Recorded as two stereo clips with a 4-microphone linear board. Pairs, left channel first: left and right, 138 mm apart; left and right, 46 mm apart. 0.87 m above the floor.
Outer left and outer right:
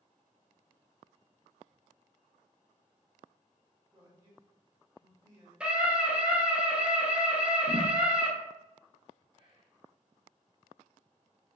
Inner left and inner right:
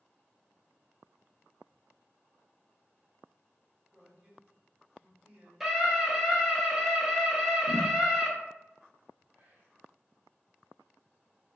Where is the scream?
5° right (ahead or behind), 0.8 m.